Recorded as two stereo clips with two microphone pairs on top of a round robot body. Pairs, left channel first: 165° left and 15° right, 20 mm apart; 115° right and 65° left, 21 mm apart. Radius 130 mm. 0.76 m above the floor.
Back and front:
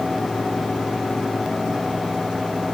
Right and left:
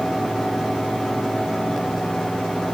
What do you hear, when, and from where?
Only background noise.